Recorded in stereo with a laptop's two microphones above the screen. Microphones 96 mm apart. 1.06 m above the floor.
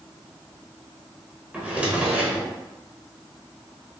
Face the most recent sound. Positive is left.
turn(degrees=-10)  # may be behind; listen again after turning